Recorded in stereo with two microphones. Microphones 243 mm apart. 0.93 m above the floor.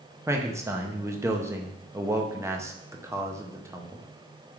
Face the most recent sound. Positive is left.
turn(degrees=-10)  # may be behind; listen again after turning